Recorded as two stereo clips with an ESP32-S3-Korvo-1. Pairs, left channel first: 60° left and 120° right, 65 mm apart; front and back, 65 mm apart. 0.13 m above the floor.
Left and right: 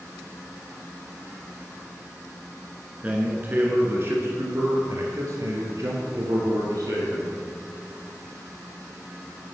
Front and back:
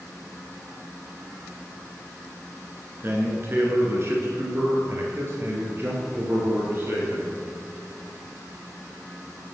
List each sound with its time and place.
3.0 s a man speaking: 165° right, 1.6 m; by 7.4 s 130° right, 3.5 m